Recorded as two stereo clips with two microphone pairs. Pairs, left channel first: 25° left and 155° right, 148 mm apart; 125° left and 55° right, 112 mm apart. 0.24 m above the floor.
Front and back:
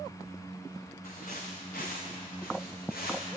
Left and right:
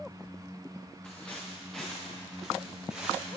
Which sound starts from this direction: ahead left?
Footsteps, at 1.0 s.